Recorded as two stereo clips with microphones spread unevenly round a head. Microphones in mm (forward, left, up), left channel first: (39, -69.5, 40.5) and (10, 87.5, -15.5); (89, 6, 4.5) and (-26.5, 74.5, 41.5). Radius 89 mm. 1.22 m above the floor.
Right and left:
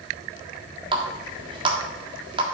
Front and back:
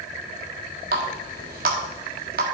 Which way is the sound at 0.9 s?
170° left.